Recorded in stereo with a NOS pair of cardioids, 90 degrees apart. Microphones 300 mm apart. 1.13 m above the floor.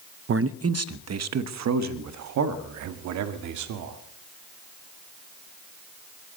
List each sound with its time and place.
0.3 s a man speaking: 45° right, 0.8 m; by 4.0 s 75° right, 2.5 m